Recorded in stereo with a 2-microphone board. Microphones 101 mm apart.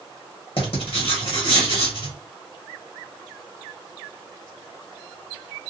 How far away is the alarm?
I don't hear an alarm.